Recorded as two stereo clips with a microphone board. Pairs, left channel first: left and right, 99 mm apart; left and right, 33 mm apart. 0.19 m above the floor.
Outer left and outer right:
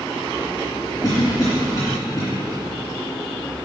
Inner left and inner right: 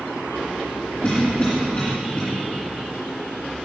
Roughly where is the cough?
Left.